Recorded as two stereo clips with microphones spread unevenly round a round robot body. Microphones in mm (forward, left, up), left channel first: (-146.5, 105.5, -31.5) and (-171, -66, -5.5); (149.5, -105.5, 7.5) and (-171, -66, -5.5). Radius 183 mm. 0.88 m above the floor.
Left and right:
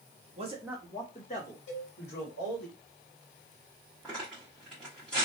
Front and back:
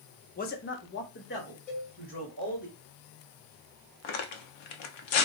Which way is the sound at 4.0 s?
10° right.